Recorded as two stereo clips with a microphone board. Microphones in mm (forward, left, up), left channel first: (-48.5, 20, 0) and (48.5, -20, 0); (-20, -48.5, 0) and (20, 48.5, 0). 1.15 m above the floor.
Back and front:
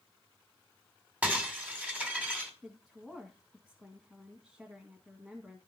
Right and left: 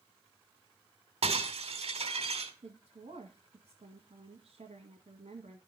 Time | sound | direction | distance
1.2 | breaking glass | 55° left | 2.5 m
2.6 | a woman speaking | 60° left | 2.0 m